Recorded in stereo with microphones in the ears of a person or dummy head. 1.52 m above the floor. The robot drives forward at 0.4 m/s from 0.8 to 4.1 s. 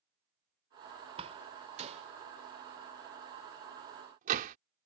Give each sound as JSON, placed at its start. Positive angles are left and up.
{"t": 1.2, "sound": "a door slam", "side_deg": -35}